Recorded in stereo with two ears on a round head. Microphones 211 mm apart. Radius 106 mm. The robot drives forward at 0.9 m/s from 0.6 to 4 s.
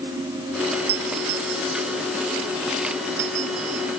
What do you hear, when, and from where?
0.9 s a doorbell: 65° right (ahead or behind); by 3.8 s 75° right (ahead or behind)